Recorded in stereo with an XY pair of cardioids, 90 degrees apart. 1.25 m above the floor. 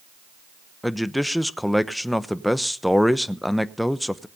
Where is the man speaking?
5° left, 0.9 m.